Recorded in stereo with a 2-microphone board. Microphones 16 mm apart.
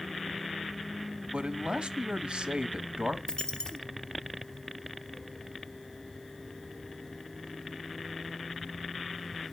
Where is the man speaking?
65° right (ahead or behind), 1.0 m.